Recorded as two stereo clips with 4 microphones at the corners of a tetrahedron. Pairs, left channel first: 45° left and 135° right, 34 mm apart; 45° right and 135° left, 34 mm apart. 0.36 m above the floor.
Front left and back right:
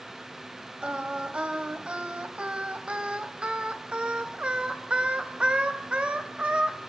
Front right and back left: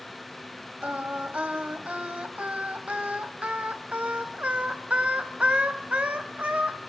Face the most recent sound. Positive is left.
turn(degrees=175)